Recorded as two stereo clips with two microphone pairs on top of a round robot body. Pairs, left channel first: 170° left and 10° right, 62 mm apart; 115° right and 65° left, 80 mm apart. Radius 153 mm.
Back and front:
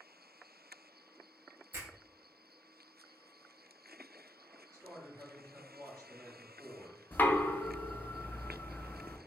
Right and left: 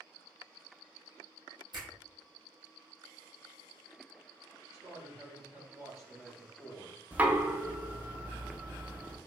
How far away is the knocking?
About 0.6 m.